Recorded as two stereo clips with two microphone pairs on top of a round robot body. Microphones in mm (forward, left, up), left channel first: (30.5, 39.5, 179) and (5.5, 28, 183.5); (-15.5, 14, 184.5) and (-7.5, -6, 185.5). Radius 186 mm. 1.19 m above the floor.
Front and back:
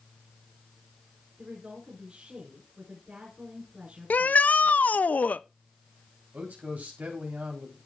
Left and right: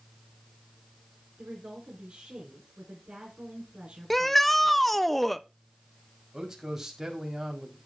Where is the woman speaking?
95° right, 4.5 m.